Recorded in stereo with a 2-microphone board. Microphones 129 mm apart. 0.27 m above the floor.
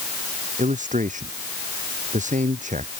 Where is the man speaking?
75° right (ahead or behind).